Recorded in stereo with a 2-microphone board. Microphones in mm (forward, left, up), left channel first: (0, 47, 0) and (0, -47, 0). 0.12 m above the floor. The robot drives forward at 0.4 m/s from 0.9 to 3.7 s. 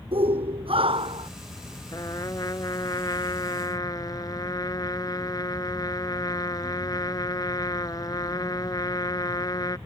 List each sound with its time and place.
0.1 s a shout: 75° right (ahead or behind); by 1.3 s 70° right (ahead or behind)
1.9 s a trumpet: 40° left (ahead or behind)